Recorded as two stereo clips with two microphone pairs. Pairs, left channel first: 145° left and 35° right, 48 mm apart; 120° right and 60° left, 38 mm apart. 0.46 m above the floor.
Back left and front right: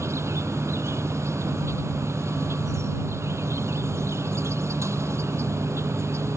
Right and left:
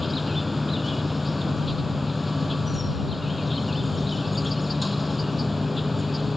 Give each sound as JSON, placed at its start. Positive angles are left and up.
{"t": 0.0, "sound": "an insect", "azimuth_deg": -30}